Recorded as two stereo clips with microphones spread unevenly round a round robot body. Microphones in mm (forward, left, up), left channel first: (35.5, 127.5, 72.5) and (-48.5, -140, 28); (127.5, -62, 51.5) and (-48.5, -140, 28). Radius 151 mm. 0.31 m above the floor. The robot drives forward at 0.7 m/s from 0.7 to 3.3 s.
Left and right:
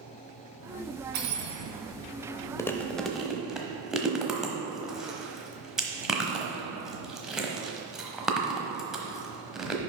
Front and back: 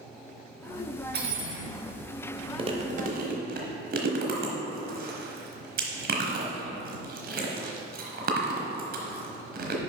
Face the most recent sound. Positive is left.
turn(degrees=170)